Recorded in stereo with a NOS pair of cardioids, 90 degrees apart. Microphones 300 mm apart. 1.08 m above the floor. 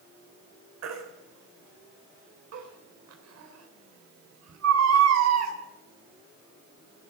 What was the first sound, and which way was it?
A baby crying, 60° right.